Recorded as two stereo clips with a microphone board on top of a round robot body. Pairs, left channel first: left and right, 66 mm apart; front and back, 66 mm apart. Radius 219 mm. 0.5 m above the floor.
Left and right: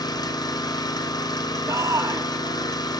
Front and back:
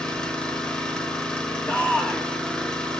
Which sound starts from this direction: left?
An engine running, at 0.0 s.